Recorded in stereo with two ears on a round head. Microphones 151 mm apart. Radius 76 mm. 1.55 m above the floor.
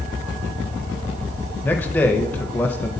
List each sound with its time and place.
1.6 s a man speaking: 10° left (ahead or behind), 0.6 m